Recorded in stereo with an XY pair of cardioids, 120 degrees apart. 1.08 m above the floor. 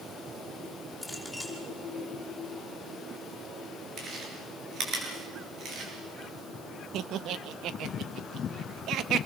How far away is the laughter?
About 1.4 m.